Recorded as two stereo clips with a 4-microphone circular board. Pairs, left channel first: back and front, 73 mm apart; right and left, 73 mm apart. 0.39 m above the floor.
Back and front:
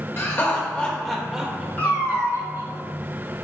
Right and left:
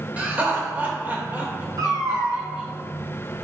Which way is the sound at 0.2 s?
150° left.